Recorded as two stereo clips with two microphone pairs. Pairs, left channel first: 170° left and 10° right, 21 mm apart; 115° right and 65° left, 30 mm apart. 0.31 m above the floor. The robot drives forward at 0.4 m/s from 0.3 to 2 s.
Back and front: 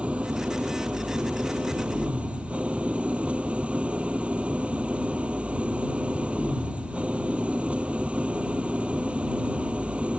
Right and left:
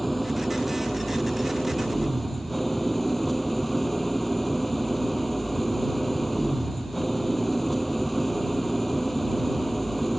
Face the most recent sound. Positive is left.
turn(degrees=-25)